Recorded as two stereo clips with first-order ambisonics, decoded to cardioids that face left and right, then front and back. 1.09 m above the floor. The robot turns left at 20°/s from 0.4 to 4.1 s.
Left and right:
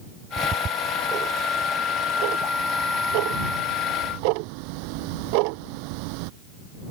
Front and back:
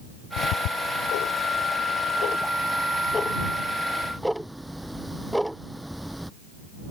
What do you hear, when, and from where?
0.4 s ticking: 20° right; by 6.3 s 90° right